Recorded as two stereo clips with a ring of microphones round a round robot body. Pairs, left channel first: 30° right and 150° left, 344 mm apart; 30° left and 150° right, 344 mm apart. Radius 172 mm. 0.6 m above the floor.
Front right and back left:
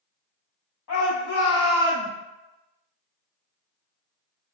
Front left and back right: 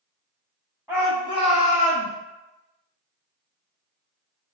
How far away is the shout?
About 1.0 m.